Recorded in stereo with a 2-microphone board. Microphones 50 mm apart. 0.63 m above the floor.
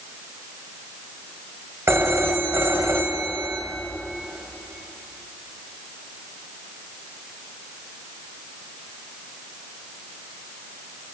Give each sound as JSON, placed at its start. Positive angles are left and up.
{"t": 1.9, "sound": "a phone ringing", "side_deg": -65, "distance_m": 2.0}